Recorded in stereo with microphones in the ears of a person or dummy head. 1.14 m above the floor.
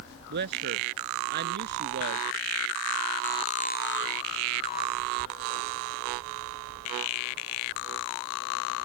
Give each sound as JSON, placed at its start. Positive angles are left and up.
{"t": 0.3, "sound": "a man speaking", "side_deg": -55}